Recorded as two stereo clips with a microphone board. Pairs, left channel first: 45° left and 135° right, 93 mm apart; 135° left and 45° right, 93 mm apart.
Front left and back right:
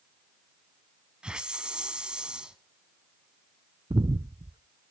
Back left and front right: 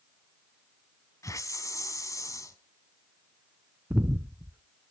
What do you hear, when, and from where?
1.2 s a hiss: 150° left, 1.0 m
3.9 s breathing: 115° right, 0.5 m